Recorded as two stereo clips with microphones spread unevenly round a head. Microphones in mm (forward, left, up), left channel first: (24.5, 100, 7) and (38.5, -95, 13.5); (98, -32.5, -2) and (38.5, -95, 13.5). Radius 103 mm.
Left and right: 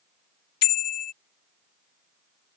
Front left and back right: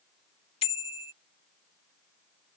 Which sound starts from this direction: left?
A bicycle bell, at 0.6 s.